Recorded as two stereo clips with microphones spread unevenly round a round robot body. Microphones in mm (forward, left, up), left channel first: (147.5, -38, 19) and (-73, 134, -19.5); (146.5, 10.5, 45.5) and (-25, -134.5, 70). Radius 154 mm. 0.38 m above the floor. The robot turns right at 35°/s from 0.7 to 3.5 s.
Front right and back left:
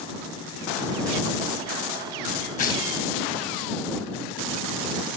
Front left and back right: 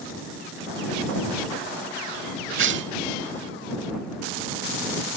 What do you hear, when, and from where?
2.6 s tearing paper: 105° right; by 2.9 s 95° right